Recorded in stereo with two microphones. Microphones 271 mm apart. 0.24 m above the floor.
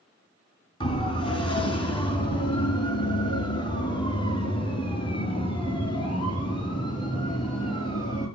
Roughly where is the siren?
Centre.